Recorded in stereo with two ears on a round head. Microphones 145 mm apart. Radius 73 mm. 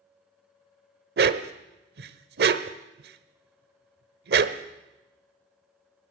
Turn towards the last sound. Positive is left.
turn(degrees=-80)